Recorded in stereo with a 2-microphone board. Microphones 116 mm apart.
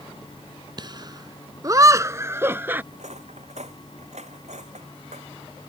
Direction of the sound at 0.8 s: 40° right (ahead or behind).